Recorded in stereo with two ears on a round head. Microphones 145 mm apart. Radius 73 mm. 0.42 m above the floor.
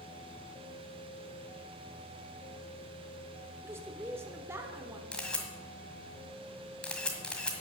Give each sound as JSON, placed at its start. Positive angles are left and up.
{"t": 3.6, "sound": "a woman speaking", "side_deg": -15, "distance_m": 1.2}
{"t": 5.1, "sound": "a camera shutter", "side_deg": 5, "distance_m": 1.7}